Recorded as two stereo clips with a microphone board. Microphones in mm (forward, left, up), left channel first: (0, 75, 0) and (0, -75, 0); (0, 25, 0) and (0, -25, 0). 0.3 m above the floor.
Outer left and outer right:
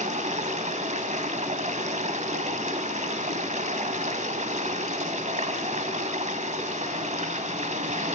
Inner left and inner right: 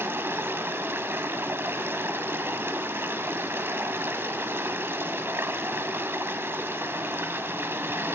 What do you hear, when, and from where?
0.0 s running water: 55° right (ahead or behind), 1.3 m